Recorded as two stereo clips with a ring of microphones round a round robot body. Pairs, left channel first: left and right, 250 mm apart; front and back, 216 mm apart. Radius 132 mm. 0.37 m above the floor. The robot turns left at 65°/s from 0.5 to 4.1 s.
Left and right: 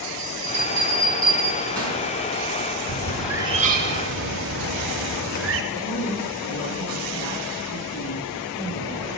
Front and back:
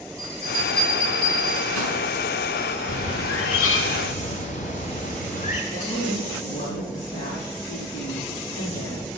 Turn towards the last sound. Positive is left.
turn(degrees=55)